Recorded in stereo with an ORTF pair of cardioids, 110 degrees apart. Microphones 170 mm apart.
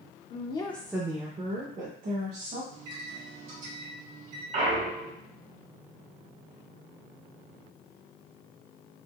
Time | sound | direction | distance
0.3 | a woman speaking | 45° left | 0.6 m
2.7 | a microwave | 50° right | 1.6 m
4.5 | a clunk | 50° right | 1.3 m